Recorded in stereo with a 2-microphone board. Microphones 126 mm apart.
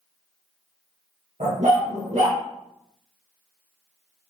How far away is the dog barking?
About 2 m.